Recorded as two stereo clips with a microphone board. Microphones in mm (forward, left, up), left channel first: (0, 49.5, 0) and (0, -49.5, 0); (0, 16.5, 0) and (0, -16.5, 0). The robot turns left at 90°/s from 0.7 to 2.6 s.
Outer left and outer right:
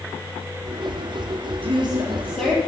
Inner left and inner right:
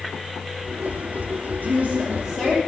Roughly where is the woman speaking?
Right.